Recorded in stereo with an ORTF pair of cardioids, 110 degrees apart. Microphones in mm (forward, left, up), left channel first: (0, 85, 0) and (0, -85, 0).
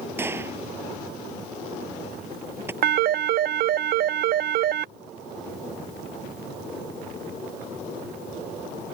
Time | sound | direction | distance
0.2 | a gunshot | 15° right | ?
2.8 | a phone ringing | 60° right | ?